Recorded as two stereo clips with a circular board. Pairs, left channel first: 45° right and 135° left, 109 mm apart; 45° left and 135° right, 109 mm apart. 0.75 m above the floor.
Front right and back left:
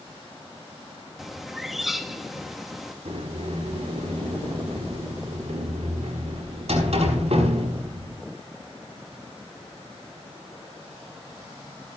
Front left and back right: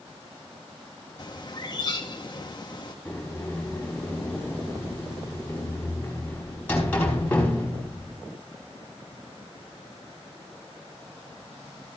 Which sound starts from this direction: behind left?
A sliding door, at 3.0 s.